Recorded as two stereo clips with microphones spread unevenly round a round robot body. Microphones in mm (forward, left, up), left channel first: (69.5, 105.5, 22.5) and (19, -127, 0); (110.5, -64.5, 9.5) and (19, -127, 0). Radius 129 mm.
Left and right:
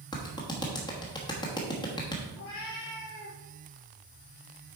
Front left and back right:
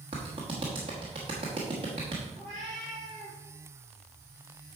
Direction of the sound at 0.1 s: 155° left.